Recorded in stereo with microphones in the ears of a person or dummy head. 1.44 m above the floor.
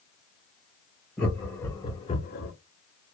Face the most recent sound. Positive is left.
turn(degrees=70)  # may be behind; listen again after turning